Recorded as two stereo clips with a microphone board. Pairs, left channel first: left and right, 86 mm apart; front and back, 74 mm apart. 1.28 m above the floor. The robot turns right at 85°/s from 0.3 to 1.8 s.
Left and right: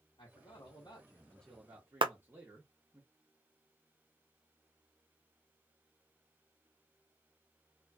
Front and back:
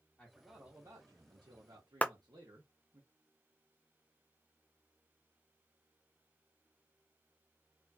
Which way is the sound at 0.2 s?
75° left.